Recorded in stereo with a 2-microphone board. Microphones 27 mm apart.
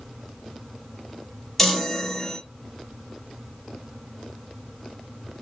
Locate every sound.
1.6 s a chime: 5° left (ahead or behind), 0.9 m